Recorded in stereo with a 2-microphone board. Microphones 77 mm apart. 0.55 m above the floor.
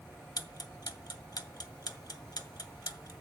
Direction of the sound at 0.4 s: 60° left (ahead or behind).